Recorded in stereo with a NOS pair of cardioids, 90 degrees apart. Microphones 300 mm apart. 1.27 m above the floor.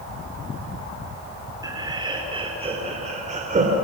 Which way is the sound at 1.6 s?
15° right.